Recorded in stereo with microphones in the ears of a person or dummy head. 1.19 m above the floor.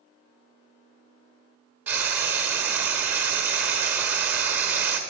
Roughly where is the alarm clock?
No alarm clock in this recording.